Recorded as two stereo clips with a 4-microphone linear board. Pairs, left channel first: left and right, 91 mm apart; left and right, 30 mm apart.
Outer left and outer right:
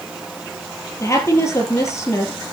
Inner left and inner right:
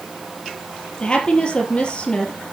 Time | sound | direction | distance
1.0 | a woman speaking | 30° left (ahead or behind) | 4 m